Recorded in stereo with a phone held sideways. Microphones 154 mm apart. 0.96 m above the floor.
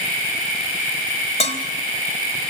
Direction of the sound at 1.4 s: 45° left (ahead or behind).